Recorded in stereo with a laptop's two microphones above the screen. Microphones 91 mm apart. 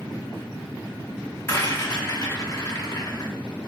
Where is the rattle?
35° left (ahead or behind), 1.7 m.